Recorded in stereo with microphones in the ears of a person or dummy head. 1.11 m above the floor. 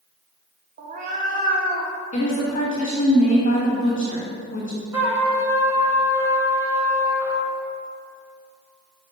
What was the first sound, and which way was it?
A cat meowing, 50° right (ahead or behind).